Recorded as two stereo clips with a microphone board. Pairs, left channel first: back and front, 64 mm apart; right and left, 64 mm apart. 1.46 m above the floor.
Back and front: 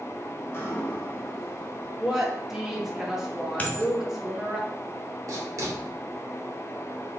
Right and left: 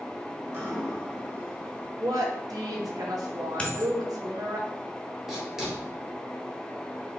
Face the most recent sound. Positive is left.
turn(degrees=10)